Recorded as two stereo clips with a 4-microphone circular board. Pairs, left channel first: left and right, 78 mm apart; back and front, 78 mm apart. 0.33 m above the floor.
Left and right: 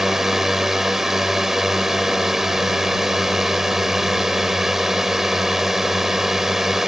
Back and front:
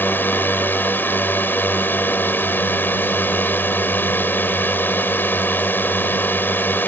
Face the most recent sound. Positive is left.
turn(degrees=-170)